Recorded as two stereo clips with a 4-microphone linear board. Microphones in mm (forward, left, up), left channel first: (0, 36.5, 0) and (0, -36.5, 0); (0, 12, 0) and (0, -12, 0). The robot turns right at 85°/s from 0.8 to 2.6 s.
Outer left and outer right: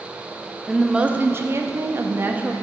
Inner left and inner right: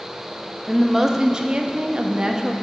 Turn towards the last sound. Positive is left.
turn(degrees=-20)